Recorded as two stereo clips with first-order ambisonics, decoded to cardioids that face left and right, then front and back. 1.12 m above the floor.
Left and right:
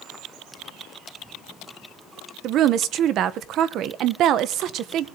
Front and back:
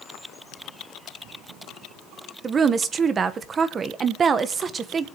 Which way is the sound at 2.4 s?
120° right.